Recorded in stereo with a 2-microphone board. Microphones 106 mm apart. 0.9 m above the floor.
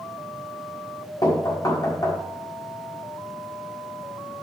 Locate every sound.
1.2 s knocking: 35° left (ahead or behind), 1.4 m